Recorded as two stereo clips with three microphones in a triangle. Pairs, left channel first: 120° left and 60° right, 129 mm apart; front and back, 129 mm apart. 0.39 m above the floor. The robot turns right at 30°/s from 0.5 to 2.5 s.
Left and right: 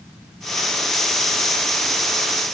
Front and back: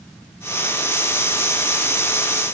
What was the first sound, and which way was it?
Only background noise.